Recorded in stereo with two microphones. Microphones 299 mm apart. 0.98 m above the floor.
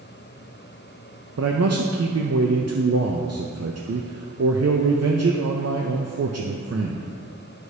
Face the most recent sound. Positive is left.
turn(degrees=-55)  # may be behind; listen again after turning